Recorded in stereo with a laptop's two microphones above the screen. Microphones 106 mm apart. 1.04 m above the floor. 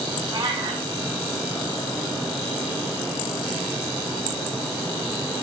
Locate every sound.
0.3 s a cat meowing: 45° right (ahead or behind), 4.5 m